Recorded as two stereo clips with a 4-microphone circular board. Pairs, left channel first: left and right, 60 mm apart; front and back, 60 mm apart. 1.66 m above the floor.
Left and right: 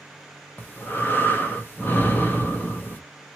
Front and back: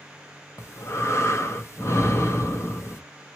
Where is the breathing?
35° left, 1.0 m.